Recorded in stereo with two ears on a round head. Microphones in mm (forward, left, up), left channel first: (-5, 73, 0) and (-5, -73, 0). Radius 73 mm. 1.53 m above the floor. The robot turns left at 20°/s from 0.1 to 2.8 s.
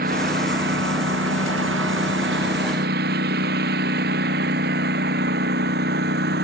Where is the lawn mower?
60° right (ahead or behind); by 6.5 s 70° right (ahead or behind).